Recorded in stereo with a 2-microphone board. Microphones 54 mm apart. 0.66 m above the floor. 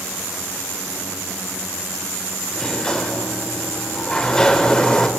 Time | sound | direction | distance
2.5 | a sliding door | 15° left (ahead or behind) | 0.5 m